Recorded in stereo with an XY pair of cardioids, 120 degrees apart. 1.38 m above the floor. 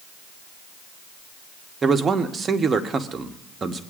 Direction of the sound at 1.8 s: 30° right.